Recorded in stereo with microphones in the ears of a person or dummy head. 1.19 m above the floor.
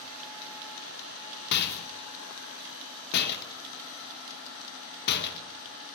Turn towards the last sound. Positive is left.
turn(degrees=60)  # may be behind; listen again after turning